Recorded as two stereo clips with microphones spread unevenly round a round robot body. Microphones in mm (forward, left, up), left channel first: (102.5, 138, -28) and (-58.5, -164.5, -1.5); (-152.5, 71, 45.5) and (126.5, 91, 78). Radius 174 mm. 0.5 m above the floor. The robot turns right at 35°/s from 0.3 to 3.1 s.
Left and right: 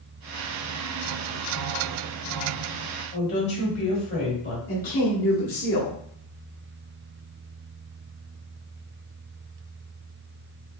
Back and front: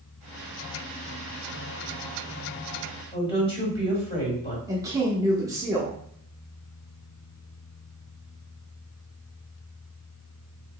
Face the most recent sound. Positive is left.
turn(degrees=85)